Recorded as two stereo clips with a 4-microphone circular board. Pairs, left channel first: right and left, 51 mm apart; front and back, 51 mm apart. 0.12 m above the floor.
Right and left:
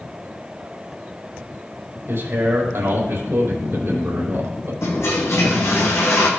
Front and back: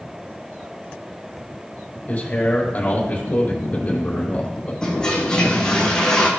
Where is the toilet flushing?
75° right, 2.5 m.